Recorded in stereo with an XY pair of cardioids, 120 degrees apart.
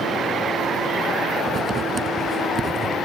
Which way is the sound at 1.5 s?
30° right.